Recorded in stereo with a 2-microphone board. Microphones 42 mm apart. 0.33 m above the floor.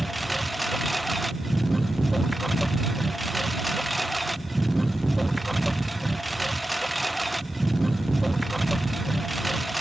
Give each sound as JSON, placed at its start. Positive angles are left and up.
{"t": 0.0, "sound": "a lawn mower", "side_deg": 0}